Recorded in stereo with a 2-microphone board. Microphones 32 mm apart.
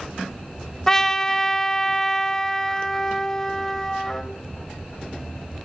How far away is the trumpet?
About 0.9 m.